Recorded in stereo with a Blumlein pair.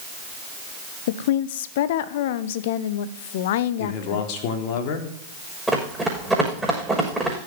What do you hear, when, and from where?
1.1 s a woman speaking: 55° left, 1.0 m
3.8 s a man speaking: 45° left, 3.5 m
5.7 s running footsteps: 5° right, 6.5 m